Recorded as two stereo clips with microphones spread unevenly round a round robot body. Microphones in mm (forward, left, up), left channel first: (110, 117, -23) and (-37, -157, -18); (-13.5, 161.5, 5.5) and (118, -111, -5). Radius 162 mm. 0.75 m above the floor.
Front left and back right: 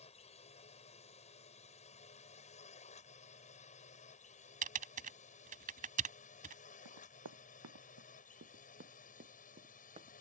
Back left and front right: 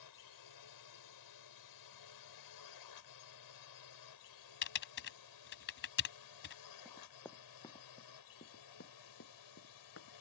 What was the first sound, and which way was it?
A drone, 130° left.